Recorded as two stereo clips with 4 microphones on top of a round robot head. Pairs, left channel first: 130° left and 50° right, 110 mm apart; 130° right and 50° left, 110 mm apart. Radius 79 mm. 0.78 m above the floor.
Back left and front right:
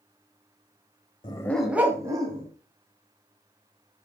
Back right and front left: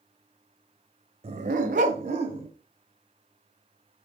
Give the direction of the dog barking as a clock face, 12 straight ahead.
9 o'clock.